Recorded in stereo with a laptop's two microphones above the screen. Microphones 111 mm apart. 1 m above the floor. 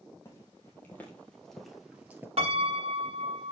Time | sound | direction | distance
0.2 | footsteps | 25° left (ahead or behind) | 2.5 m
2.4 | a piano | 60° right (ahead or behind) | 1.4 m